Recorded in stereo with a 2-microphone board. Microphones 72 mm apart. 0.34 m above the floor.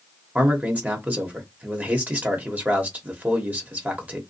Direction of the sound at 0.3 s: 20° right (ahead or behind).